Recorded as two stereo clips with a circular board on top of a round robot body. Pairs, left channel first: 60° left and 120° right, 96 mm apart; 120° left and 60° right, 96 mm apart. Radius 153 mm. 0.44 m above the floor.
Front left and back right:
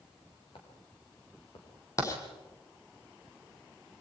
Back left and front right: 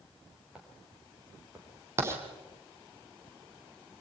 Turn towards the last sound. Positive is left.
turn(degrees=0)